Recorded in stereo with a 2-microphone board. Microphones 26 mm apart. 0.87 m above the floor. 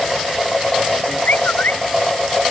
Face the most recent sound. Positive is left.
turn(degrees=80)